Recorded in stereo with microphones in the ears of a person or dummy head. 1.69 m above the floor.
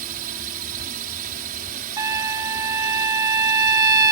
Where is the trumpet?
20° right (ahead or behind).